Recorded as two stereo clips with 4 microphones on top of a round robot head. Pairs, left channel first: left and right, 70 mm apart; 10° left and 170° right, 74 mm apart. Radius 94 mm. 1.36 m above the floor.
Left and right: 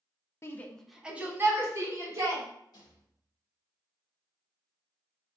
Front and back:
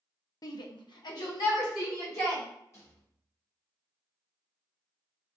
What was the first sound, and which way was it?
A shout, 40° left.